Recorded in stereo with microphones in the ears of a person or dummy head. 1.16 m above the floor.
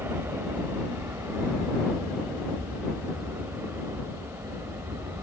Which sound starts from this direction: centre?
An aircraft, at 0.0 s.